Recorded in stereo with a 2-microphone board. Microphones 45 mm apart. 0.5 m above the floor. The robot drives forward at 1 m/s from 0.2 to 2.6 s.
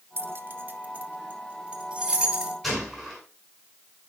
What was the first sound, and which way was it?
Keys jangling, 60° right (ahead or behind).